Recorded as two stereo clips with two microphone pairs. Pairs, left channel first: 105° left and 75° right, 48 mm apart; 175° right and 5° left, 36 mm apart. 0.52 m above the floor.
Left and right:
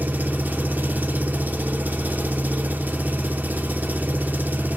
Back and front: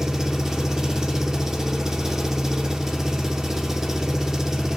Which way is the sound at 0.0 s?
60° right.